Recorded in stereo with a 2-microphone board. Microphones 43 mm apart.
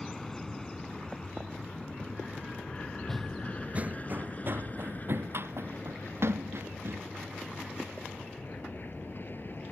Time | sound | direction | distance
0.0 | an aircraft | 10° left (ahead or behind) | ?
3.1 | running footsteps | 5° left (ahead or behind) | ?